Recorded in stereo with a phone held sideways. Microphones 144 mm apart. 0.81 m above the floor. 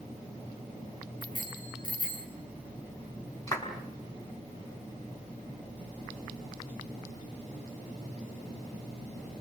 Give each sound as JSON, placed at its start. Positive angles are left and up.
{"t": 1.2, "sound": "a bicycle bell", "side_deg": 40, "distance_m": 7.5}
{"t": 3.5, "sound": "a clap", "side_deg": 25, "distance_m": 5.5}